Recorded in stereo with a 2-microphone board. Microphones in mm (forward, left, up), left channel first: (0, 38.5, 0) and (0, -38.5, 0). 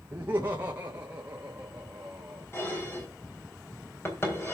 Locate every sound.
0.1 s laughter: 30° right (ahead or behind), 1.0 m; by 2.5 s 10° right (ahead or behind), 2 m
2.5 s dishes clattering: 30° left (ahead or behind), 3.5 m